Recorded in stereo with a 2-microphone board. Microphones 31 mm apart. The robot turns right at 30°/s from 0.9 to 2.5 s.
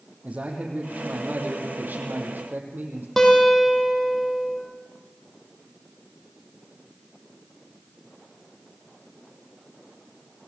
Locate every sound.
0.2 s a man speaking: 135° right, 5.5 m; by 3.1 s 90° right, 5.5 m
3.2 s a guitar: 10° left (ahead or behind), 5.5 m